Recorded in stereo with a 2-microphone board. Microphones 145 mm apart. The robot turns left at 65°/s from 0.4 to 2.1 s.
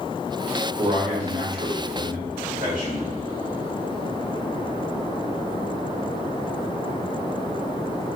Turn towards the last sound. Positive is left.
turn(degrees=-115)